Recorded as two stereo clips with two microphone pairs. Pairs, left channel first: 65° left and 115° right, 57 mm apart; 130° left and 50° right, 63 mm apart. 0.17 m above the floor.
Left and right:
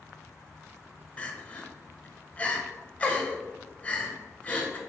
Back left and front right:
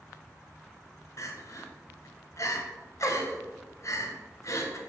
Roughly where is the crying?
Behind left.